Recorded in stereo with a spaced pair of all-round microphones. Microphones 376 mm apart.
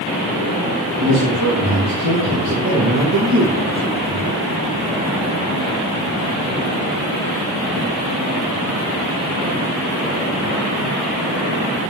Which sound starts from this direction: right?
A man speaking, at 1.0 s.